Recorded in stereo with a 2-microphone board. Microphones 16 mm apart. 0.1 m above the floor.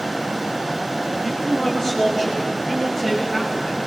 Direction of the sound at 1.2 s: 35° left (ahead or behind).